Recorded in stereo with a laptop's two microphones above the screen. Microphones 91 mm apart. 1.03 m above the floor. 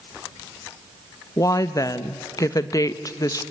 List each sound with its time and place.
1.4 s a woman speaking: 40° left (ahead or behind), 0.9 m